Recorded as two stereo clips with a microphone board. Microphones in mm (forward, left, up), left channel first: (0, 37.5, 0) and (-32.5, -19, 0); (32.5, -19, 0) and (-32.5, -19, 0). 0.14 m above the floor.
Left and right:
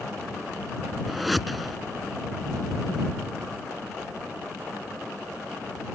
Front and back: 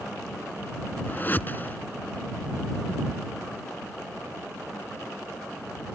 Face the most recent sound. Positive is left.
turn(degrees=-30)